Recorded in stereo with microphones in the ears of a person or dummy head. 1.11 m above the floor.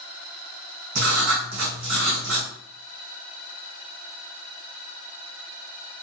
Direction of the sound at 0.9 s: 60° right (ahead or behind).